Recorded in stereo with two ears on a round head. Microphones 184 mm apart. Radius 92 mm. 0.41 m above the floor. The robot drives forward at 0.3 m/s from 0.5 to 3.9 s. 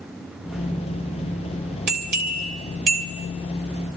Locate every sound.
1.9 s a bell: 50° right (ahead or behind), 2 m